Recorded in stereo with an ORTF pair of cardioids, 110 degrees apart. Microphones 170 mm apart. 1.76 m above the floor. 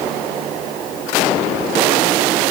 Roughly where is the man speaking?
I don't hear a man speaking.